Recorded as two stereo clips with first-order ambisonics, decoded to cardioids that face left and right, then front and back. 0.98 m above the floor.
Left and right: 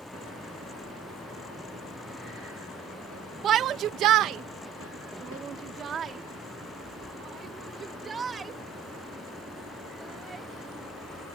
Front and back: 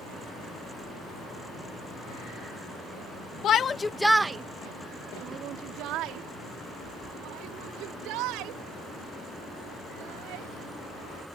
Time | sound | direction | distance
3.4 | a shout | 45° right | ?